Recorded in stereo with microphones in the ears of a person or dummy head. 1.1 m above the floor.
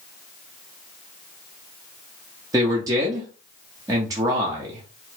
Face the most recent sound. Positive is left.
turn(degrees=-15)  # may be behind; listen again after turning